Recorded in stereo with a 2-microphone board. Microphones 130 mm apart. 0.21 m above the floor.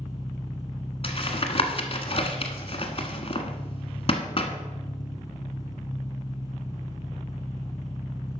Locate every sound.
0.0 s an engine running: 30° left (ahead or behind), 2.0 m
1.0 s tapping: 45° left (ahead or behind), 1.4 m